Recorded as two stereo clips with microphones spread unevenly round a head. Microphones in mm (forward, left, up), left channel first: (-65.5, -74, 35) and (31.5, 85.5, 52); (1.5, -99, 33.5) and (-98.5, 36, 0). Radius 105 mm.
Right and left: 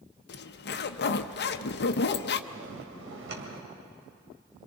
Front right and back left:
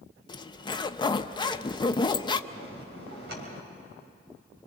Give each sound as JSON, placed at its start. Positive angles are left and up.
{"t": 0.3, "sound": "a zipper", "azimuth_deg": -125, "distance_m": 0.7}
{"t": 2.5, "sound": "a bell", "azimuth_deg": 80, "distance_m": 3.0}